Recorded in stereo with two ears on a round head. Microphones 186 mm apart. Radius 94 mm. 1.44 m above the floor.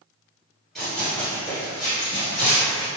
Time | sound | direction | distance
0.8 | running footsteps | centre (ahead or behind) | 1.7 m